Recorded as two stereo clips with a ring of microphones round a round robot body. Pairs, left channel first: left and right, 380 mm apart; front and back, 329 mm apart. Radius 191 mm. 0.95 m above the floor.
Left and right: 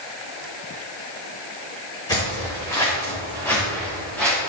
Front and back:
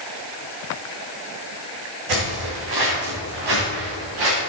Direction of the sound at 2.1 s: 170° left.